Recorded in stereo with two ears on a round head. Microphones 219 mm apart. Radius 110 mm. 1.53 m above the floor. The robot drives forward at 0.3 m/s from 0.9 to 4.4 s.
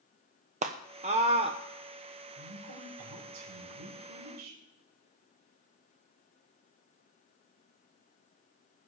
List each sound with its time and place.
0.6 s a scream: 30° right (ahead or behind), 0.7 m; by 1.6 s 25° right (ahead or behind), 0.9 m
2.3 s a woman speaking: 90° right, 6 m; by 4.6 s 85° right, 6 m